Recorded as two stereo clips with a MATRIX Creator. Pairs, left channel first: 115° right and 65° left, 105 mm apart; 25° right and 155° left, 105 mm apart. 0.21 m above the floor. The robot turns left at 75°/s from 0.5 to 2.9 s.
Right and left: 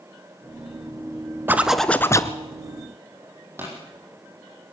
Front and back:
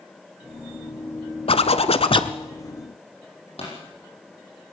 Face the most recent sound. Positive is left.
turn(degrees=0)